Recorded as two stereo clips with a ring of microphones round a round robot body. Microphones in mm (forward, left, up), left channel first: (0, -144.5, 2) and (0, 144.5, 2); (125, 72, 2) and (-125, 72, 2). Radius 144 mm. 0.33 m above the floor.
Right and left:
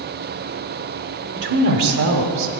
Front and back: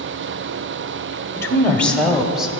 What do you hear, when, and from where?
1.4 s a woman speaking: 75° left, 1.3 m; by 2.5 s 95° left, 1.8 m